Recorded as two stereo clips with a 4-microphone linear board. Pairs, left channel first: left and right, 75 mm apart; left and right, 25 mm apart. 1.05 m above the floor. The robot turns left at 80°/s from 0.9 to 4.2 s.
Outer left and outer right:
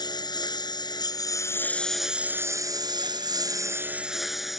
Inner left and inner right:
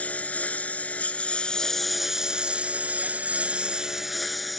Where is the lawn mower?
85° left; by 4.6 s 175° right.